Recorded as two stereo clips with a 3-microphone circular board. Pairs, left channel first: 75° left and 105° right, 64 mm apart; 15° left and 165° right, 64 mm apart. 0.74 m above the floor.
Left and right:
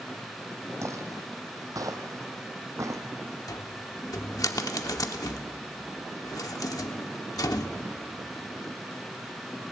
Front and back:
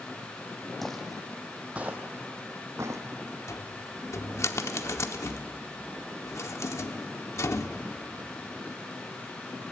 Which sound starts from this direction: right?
Footsteps, at 0.8 s.